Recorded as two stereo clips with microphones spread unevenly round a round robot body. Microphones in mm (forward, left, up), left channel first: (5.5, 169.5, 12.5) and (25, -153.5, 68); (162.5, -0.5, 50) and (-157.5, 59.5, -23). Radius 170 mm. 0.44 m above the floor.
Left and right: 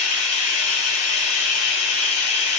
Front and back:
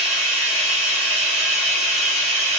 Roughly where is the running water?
Left.